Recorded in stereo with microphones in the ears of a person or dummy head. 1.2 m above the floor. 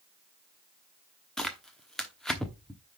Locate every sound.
1.4 s tearing paper: centre (ahead or behind), 1.0 m